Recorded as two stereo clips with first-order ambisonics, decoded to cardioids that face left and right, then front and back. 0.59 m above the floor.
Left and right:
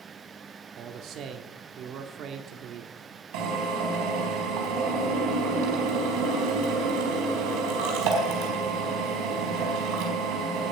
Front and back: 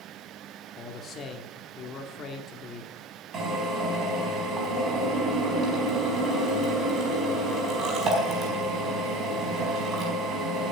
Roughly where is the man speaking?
Ahead right.